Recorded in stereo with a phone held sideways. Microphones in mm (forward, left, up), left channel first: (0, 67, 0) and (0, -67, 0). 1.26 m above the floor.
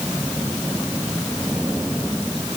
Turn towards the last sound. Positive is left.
No sound to turn to.